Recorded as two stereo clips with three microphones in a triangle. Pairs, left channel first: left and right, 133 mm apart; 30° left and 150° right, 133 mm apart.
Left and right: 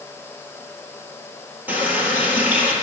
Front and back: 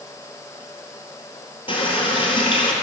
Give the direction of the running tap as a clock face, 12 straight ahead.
12 o'clock.